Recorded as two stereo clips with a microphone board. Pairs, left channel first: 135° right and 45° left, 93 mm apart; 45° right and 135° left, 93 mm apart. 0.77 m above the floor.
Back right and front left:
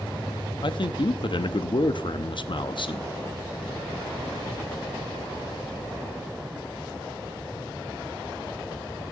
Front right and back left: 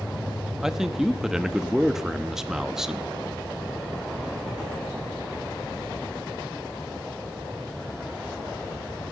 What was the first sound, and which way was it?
A man speaking, 140° right.